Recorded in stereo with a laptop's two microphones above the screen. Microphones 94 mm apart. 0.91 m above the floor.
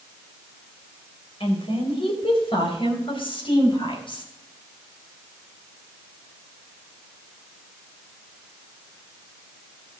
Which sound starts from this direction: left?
A woman speaking, at 1.4 s.